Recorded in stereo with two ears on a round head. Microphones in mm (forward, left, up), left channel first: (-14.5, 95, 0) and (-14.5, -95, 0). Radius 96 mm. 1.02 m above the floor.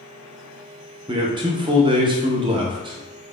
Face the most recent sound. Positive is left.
turn(degrees=-25)  # may be behind; listen again after turning